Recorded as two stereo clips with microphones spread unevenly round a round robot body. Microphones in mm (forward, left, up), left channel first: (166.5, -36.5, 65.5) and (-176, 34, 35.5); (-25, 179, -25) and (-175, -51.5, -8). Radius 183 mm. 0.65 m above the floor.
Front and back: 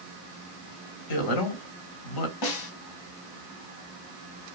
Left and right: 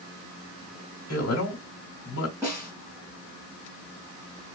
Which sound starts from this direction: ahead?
A man speaking, at 1.1 s.